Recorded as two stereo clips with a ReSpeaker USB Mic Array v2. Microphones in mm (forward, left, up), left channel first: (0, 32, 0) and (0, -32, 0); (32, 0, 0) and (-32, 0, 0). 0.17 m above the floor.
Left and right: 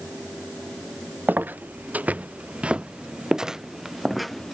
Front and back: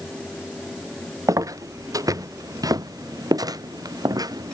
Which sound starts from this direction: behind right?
Footsteps, at 1.3 s.